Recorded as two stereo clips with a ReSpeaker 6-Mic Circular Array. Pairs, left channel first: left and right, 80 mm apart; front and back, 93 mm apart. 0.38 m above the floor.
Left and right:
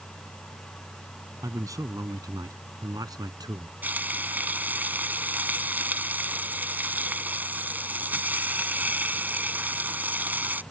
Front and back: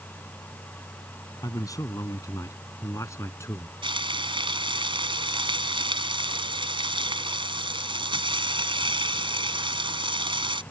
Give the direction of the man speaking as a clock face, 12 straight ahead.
2 o'clock.